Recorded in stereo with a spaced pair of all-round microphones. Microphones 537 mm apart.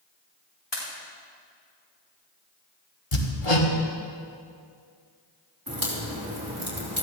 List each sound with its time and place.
0.7 s a pop: 50° left (ahead or behind), 4 m
3.1 s hammering: 65° left (ahead or behind), 1.8 m
5.7 s a crack: 40° right (ahead or behind), 3.5 m